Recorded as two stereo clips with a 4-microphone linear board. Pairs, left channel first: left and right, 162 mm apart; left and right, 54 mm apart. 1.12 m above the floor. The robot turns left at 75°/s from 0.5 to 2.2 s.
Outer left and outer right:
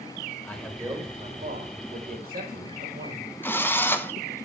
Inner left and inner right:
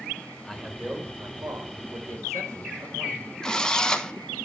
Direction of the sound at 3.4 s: 15° left (ahead or behind).